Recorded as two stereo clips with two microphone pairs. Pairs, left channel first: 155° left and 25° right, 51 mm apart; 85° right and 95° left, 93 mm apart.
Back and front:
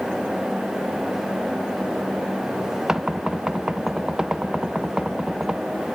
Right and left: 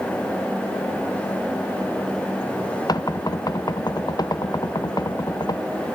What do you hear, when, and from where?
2.9 s knocking: 95° right, 0.6 m